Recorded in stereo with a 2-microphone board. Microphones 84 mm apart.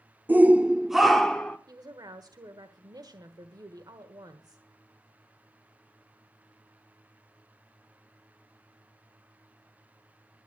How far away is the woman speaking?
About 1.3 m.